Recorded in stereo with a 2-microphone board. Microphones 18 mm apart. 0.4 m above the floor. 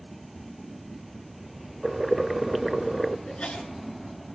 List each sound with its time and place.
1.8 s boiling: 5° right (ahead or behind), 0.7 m
3.3 s a sneeze: 75° left (ahead or behind), 5.5 m